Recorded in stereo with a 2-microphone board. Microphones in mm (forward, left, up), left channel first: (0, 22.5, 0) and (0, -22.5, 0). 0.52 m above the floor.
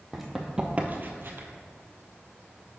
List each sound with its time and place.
0.1 s running footsteps: centre (ahead or behind), 1.2 m; by 1.5 s 60° right (ahead or behind), 1.0 m